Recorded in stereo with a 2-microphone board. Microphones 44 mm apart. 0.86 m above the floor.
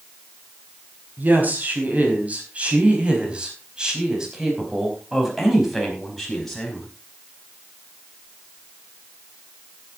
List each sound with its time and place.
1.2 s a woman speaking: 40° right (ahead or behind), 5 m; by 6.9 s 10° left (ahead or behind), 5 m